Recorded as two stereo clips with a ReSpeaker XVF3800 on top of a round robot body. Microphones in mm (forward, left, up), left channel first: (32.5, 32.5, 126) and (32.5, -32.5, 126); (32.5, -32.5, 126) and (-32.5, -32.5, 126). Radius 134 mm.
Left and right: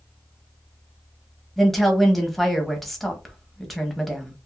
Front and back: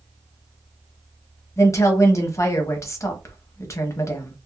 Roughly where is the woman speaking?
Ahead.